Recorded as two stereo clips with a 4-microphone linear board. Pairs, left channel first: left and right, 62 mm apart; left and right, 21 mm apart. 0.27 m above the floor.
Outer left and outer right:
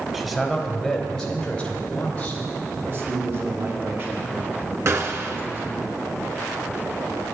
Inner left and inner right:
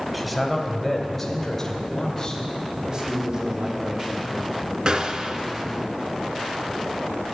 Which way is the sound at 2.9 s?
40° right (ahead or behind).